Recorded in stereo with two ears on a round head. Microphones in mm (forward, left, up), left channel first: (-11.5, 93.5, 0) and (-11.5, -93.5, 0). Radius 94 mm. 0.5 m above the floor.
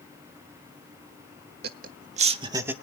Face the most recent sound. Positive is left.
turn(degrees=-10)  # may be behind; listen again after turning